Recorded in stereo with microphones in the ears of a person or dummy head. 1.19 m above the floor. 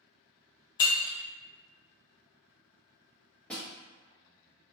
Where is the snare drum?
Centre (ahead or behind), 0.9 m.